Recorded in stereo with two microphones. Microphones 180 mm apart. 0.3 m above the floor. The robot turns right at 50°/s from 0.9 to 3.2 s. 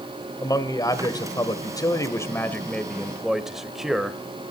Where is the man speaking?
20° left (ahead or behind), 1.5 m; by 4.2 s centre (ahead or behind), 1.5 m.